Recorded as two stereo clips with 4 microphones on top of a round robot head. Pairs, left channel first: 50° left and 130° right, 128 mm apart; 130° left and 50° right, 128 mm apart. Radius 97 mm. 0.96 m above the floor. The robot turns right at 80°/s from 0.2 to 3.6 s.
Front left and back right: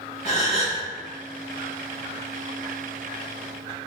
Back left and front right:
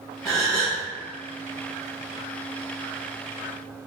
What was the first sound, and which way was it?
A gasp, 35° left.